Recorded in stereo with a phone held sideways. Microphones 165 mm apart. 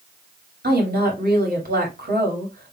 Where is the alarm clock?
No alarm clock in this recording.